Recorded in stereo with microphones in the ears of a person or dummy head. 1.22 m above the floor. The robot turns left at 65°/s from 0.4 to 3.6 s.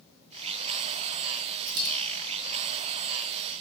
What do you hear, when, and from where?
1.7 s a dropped coin: 75° right (ahead or behind), 3 m; by 1.9 s 65° right (ahead or behind), 3 m